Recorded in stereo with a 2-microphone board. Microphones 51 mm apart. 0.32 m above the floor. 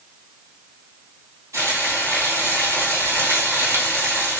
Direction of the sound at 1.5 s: 85° right.